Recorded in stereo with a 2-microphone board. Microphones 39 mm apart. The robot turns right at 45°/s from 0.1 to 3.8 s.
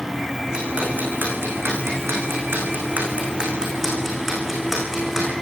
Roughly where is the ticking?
Centre.